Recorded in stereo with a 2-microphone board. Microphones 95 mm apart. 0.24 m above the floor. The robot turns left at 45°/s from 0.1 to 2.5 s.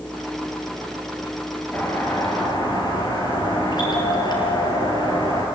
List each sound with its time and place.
1.7 s a doorbell: 160° left, 5 m; by 5.5 s 125° left, 5 m